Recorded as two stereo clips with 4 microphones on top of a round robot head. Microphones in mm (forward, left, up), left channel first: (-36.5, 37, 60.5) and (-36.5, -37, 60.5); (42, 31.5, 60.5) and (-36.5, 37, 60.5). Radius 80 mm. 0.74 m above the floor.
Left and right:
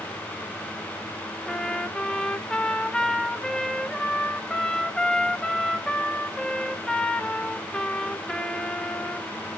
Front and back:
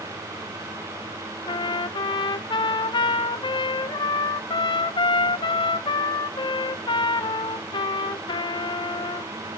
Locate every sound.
1.5 s a trumpet: 10° left, 0.9 m